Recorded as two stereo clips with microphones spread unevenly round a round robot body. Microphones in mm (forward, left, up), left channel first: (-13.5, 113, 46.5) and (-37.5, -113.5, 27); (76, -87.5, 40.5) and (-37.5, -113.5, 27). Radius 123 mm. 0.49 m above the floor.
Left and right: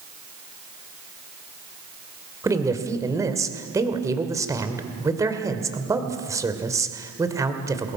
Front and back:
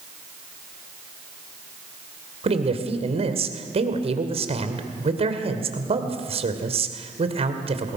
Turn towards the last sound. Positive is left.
turn(degrees=-170)